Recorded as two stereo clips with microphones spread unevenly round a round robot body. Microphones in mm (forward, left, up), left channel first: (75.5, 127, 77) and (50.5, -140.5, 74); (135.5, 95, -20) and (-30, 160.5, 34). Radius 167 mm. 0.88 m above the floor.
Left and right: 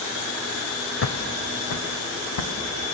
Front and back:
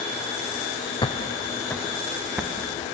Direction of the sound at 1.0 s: 50° left.